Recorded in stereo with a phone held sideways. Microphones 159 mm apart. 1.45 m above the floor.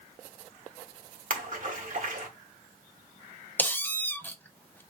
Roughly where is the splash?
Right.